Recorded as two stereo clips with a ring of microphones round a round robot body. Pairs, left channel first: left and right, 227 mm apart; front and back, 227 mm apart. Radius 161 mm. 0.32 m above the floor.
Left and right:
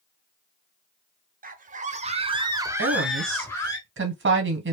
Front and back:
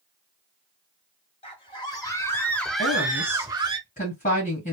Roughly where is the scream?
Ahead right.